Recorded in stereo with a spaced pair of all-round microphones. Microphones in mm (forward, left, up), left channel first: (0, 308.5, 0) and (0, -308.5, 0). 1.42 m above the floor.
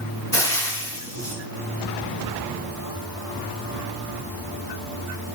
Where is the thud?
No thud in this recording.